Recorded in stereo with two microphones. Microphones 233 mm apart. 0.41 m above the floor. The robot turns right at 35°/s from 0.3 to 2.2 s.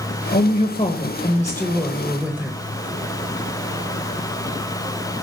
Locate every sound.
0.3 s a woman speaking: 125° left, 1.2 m; by 2.6 s 170° right, 1.2 m